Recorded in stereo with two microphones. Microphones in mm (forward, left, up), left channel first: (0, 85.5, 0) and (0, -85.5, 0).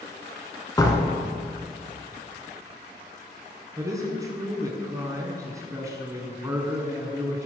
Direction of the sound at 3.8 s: 20° right (ahead or behind).